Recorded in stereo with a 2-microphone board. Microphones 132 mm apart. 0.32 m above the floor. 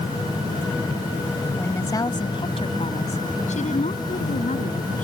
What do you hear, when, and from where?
1.6 s a woman speaking: 15° left (ahead or behind); by 5.0 s 75° left (ahead or behind)